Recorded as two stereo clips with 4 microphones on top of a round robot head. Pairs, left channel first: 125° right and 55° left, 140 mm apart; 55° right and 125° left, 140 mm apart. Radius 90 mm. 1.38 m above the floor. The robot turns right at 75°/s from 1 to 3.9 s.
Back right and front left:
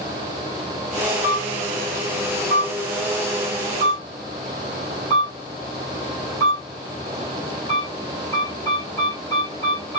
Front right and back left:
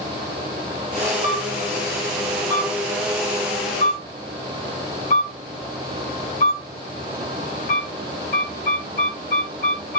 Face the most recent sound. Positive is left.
turn(degrees=-60)